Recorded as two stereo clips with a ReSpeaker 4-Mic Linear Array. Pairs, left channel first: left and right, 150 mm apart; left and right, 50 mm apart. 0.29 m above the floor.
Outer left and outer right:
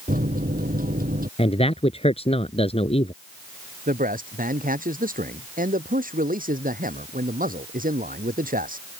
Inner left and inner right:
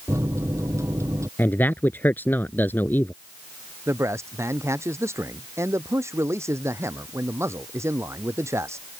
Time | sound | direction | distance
0.1 | a microwave | 70° right (ahead or behind) | ?
1.4 | a man speaking | 40° left (ahead or behind) | ?
3.9 | a man speaking | 70° right (ahead or behind) | ?